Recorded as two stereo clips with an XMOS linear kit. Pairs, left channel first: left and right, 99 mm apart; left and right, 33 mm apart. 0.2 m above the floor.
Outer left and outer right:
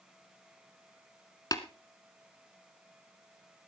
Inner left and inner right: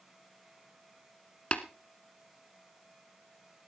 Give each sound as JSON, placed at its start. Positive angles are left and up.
{"t": 1.5, "sound": "tapping", "side_deg": 40, "distance_m": 1.2}